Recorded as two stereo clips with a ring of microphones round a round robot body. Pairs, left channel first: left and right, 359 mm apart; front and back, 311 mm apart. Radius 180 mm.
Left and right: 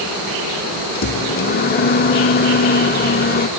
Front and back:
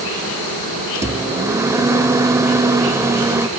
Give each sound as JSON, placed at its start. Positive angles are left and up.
{"t": 0.9, "sound": "a microwave", "azimuth_deg": 110}